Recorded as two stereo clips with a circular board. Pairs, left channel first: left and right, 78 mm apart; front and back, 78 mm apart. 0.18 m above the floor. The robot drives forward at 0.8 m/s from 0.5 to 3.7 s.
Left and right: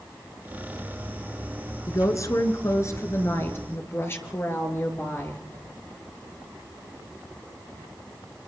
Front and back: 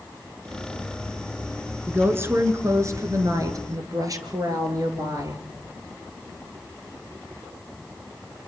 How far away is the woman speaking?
About 2.5 m.